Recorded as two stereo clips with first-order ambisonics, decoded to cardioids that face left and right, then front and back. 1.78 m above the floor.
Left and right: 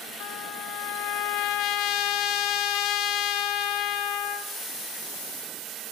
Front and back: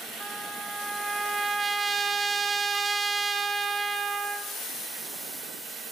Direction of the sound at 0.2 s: 105° left.